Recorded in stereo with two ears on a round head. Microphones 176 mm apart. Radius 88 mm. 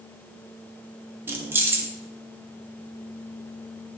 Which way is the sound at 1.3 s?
10° right (ahead or behind).